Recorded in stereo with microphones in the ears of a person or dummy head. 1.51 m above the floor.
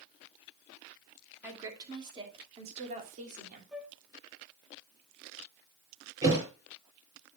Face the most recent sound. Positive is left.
turn(degrees=-25)  # may be behind; listen again after turning